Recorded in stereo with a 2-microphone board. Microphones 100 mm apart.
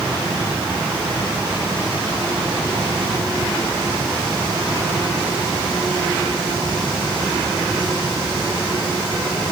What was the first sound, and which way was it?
Only background noise.